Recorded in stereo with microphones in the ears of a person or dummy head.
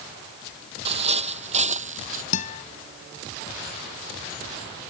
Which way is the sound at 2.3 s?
45° left (ahead or behind).